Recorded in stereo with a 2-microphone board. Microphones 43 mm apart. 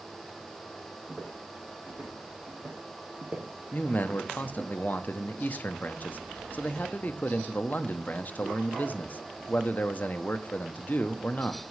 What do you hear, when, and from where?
1.1 s footsteps: 30° right (ahead or behind), 4 m; by 4.7 s 10° right (ahead or behind), 1.7 m
3.7 s a man speaking: 40° left (ahead or behind), 0.7 m